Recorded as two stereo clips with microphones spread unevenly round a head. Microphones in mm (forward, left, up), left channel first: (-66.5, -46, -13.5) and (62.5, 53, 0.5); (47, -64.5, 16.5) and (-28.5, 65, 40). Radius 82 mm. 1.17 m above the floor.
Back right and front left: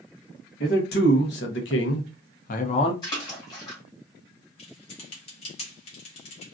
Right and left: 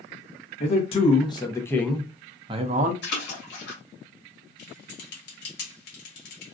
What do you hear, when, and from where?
0.6 s a man speaking: 105° right, 1.2 m; by 2.9 s 160° left, 0.7 m
3.0 s a splash: 75° right, 2.0 m
4.6 s typing on a keyboard: 85° right, 1.1 m